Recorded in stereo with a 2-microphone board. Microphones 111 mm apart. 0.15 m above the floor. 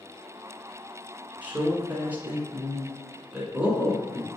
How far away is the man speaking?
About 1.3 m.